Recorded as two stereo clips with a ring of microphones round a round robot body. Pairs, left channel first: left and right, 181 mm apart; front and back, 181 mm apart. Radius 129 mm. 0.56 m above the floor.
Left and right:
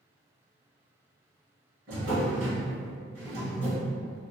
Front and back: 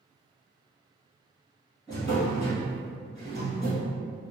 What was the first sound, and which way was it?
A drawer, 90° right.